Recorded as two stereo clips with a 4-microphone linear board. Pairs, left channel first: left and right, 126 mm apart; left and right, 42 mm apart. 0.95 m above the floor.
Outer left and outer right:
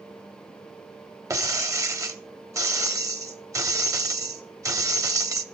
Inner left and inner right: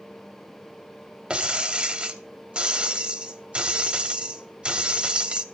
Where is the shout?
I don't hear a shout.